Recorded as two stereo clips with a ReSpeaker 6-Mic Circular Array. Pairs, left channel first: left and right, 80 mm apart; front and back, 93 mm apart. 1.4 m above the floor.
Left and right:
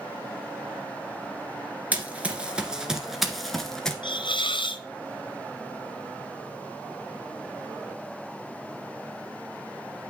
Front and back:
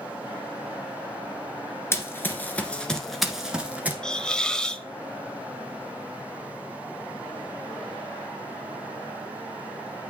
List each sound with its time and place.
1.9 s running footsteps: 35° right, 1.6 m; by 3.9 s 160° left, 1.4 m
4.0 s a hiss: 85° left, 0.6 m